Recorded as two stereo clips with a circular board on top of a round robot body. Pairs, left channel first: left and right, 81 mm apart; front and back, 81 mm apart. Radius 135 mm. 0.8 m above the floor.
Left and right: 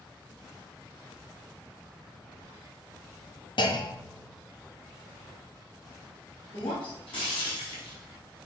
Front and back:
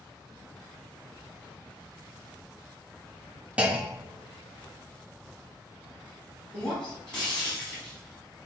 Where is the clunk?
105° left, 1.3 m.